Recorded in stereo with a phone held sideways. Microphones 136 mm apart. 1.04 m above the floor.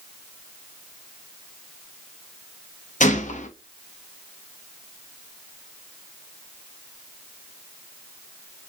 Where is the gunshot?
65° left (ahead or behind), 0.6 m.